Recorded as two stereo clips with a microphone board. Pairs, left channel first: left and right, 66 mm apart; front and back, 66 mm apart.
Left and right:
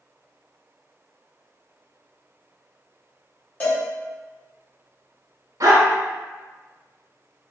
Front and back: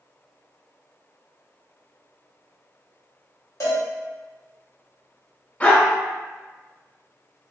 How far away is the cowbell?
About 1.8 m.